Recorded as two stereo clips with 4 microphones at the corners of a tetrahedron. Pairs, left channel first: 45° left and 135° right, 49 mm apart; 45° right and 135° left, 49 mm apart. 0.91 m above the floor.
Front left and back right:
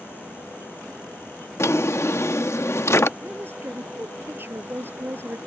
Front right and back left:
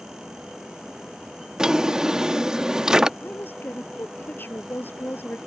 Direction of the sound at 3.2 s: 90° right.